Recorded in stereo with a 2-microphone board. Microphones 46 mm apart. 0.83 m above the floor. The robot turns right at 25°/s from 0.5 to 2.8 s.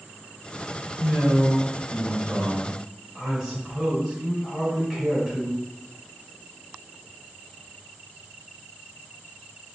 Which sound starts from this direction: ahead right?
A man speaking, at 1.0 s.